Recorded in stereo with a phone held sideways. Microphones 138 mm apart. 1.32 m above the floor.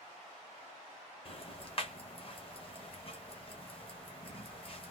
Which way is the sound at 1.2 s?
40° left (ahead or behind).